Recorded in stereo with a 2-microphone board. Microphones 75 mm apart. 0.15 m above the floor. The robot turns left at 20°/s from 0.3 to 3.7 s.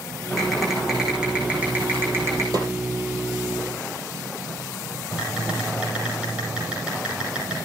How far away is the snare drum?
About 3.5 m.